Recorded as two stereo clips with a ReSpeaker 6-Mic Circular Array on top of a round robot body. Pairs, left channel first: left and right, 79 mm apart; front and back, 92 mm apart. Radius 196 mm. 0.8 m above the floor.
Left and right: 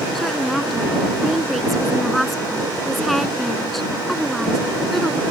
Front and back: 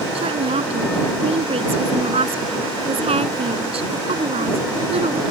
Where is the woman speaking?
175° left.